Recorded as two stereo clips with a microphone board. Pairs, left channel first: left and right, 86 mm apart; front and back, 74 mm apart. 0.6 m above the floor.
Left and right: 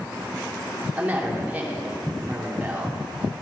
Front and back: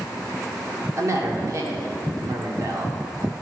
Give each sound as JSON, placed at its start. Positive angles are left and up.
{"t": 1.0, "sound": "a woman speaking", "azimuth_deg": -155, "distance_m": 1.9}